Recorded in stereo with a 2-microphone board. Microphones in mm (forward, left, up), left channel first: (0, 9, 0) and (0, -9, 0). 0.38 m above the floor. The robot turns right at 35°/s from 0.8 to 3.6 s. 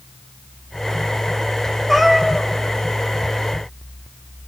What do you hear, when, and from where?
1.9 s a cat meowing: 15° left (ahead or behind), 3 m; by 2.5 s 35° left (ahead or behind), 3 m